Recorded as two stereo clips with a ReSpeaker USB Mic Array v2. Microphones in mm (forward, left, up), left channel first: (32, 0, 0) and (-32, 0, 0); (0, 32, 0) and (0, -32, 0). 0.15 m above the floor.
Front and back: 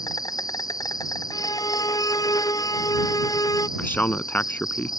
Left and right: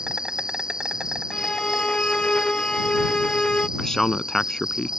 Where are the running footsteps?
No running footsteps in this recording.